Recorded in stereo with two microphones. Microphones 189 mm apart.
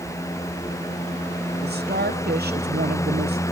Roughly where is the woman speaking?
Right.